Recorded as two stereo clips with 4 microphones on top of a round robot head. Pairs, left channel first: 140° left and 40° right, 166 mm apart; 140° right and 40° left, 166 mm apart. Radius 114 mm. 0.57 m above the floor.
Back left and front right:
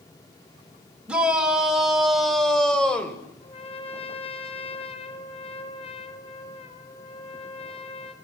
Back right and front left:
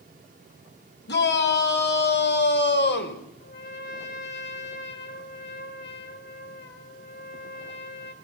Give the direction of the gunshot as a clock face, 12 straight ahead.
I don't hear a gunshot.